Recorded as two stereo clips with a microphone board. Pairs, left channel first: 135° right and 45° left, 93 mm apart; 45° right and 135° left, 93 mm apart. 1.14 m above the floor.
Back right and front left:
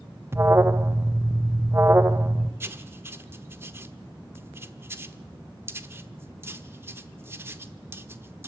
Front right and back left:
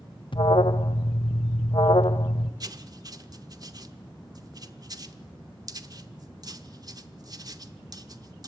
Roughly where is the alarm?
Ahead.